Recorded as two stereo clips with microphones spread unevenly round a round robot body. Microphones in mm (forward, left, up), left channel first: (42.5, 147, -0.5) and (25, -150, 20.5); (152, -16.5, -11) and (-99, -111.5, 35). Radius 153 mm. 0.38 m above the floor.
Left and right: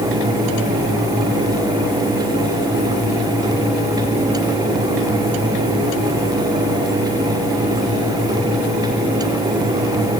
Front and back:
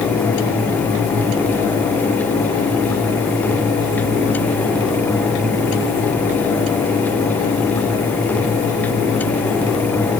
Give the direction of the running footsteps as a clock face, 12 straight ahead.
I don't hear running footsteps.